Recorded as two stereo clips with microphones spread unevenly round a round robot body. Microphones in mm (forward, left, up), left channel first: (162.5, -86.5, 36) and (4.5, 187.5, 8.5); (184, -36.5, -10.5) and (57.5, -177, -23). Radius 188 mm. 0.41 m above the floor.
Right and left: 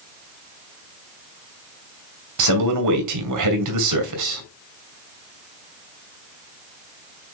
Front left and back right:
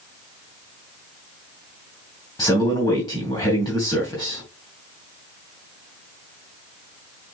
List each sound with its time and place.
2.4 s a man speaking: 130° left, 2.5 m